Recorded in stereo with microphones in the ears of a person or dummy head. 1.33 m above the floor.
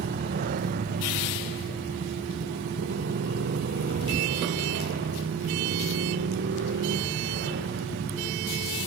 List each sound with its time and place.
0.0 s a motorcycle: 50° right (ahead or behind); by 8.9 s 60° right (ahead or behind)